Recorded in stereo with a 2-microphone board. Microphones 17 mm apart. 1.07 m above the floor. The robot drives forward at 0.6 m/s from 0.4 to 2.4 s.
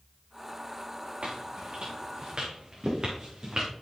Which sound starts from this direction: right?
Footsteps, at 1.2 s.